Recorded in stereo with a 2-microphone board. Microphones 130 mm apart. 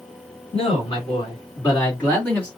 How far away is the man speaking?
About 2.5 m.